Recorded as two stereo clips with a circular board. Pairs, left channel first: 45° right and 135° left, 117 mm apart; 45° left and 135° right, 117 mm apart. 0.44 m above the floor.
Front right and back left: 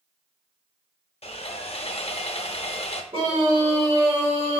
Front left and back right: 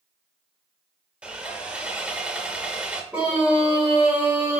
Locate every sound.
1.2 s sawing: 55° right, 0.5 m
3.1 s a scream: 145° left, 2 m